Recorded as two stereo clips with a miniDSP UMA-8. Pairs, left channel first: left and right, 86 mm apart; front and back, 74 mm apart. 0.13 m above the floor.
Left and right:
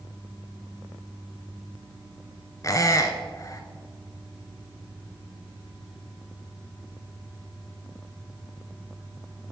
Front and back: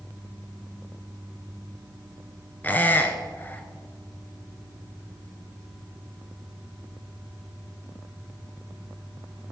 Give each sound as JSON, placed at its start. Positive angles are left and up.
{"t": 2.6, "sound": "a squeak", "azimuth_deg": 55, "distance_m": 0.7}